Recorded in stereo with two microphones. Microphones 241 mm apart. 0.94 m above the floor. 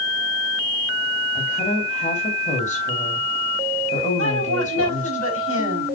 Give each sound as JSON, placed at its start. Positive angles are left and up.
{"t": 1.4, "sound": "a woman speaking", "side_deg": 30, "distance_m": 4.0}
{"t": 4.2, "sound": "a woman speaking", "side_deg": -65, "distance_m": 5.0}